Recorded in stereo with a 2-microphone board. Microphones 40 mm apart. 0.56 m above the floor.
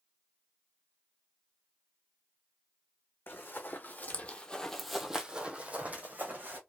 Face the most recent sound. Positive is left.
turn(degrees=-50)  # may be behind; listen again after turning